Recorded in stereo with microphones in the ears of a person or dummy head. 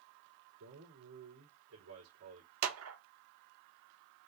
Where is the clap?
80° right, 1.0 m.